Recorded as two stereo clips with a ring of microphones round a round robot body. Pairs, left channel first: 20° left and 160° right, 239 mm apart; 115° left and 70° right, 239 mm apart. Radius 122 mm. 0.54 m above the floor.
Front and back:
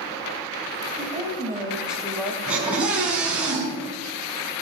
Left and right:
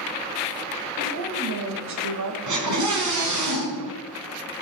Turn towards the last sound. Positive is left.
turn(degrees=-70)